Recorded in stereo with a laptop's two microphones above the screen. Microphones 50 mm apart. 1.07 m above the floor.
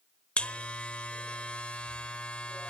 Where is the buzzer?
25° left (ahead or behind), 1.0 m.